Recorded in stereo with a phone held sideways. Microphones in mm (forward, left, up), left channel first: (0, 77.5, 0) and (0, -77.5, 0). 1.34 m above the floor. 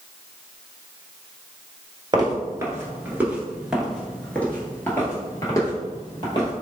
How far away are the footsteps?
About 1.4 m.